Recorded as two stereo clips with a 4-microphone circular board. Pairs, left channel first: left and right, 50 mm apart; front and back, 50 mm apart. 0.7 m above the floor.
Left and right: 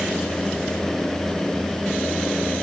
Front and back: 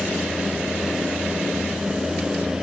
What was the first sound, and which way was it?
Only background noise.